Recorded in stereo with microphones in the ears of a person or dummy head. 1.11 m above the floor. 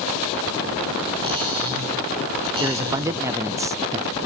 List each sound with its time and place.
1.2 s cutlery clinking: 25° right (ahead or behind), 5 m
2.6 s a man speaking: 20° right (ahead or behind), 0.6 m